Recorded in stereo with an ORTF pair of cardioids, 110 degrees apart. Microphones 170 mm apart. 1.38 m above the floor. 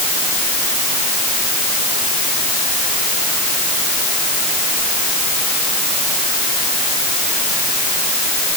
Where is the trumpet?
No trumpet in this recording.